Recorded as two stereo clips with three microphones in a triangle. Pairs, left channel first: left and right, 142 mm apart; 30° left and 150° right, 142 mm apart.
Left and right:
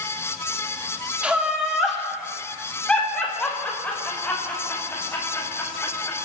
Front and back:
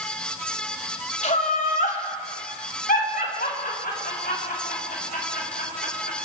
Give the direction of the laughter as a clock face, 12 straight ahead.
12 o'clock.